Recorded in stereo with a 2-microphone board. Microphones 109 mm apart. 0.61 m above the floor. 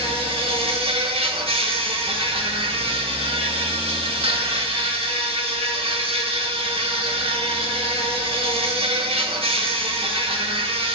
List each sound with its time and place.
0.0 s an insect: 55° right (ahead or behind), 1.0 m